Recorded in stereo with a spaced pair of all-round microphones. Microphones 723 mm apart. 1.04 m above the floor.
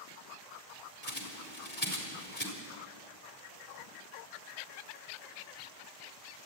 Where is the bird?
35° left (ahead or behind), 3.5 m.